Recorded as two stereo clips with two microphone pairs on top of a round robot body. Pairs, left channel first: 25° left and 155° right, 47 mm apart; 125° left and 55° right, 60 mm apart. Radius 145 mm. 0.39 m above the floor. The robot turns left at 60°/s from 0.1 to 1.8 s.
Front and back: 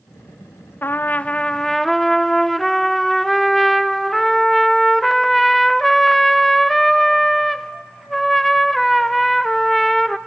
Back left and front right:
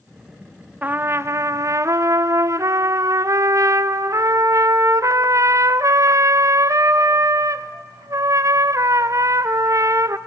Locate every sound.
0.8 s a trumpet: straight ahead, 0.7 m; by 10.2 s 60° right, 0.7 m